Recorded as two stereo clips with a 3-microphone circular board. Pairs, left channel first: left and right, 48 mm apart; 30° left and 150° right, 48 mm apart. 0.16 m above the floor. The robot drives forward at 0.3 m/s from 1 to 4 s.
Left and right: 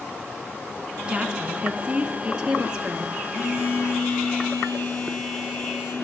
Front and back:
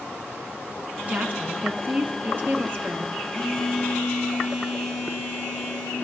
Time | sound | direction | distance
1.1 | a woman speaking | 145° right | 1.4 m
3.3 | a phone buzzing | 105° left | 4.5 m